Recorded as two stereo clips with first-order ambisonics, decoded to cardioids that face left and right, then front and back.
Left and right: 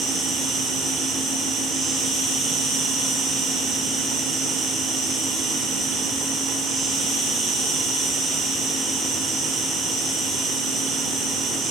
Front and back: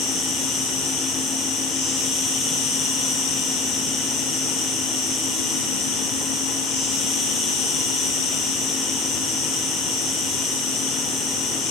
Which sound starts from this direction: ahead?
An insect, at 0.0 s.